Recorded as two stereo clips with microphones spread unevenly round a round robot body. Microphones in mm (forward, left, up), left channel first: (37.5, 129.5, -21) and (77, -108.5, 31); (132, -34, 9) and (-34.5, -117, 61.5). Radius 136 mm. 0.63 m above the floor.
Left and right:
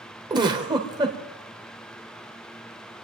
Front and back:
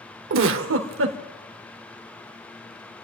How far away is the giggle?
About 1.3 m.